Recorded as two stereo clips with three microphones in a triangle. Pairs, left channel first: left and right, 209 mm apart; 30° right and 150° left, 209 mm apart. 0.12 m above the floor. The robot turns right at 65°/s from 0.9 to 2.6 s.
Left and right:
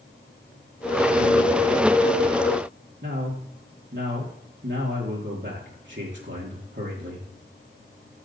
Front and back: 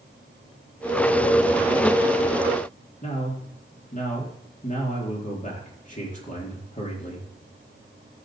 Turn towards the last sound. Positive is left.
turn(degrees=-75)